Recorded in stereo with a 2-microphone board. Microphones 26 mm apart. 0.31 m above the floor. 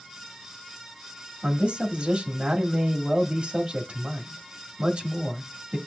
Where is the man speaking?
50° right (ahead or behind), 1.3 m.